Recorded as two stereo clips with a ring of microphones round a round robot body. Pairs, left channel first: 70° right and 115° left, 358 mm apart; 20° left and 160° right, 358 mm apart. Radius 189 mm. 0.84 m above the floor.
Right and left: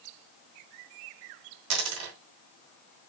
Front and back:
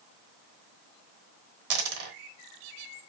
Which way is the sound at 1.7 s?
165° left.